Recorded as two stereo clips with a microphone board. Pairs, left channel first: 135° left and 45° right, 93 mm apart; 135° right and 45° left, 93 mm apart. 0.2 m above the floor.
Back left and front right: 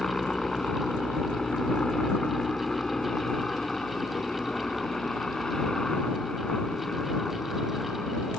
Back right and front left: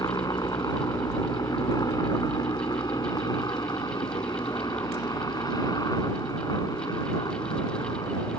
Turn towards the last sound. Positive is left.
turn(degrees=-145)